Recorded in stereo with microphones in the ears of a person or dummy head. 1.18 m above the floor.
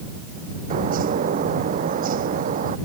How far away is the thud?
No thud in this recording.